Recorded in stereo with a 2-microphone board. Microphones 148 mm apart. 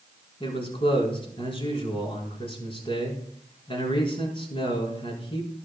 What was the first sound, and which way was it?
A man speaking, 35° left (ahead or behind).